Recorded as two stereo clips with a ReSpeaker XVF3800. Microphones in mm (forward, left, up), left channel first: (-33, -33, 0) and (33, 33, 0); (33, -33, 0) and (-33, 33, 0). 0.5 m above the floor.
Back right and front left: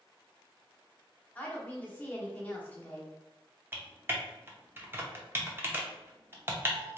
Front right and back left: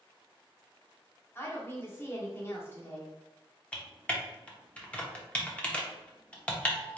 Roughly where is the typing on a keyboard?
Ahead.